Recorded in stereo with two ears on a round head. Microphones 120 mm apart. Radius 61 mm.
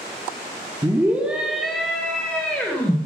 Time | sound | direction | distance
0.8 | a scream | 20° right (ahead or behind) | 1.3 m